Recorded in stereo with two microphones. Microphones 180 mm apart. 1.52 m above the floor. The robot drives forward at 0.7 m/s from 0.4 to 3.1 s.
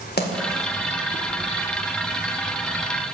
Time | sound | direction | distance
0.2 | a splash | 65° left (ahead or behind) | 1.9 m